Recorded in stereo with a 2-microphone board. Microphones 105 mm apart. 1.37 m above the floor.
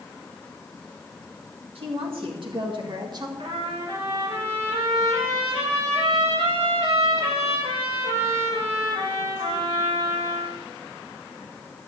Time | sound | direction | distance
1.8 | a woman speaking | 65° right (ahead or behind) | 2.5 m
3.4 | a trumpet | 80° right | 6 m